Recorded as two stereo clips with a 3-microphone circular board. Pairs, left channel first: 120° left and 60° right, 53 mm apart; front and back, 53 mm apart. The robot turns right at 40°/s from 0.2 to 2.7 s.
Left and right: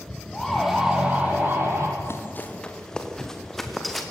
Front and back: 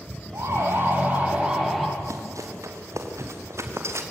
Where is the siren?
160° right, 6 m; by 1.9 s 90° right, 5.5 m.